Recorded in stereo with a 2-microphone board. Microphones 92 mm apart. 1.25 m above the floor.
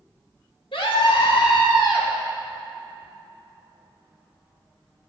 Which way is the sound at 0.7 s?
85° left.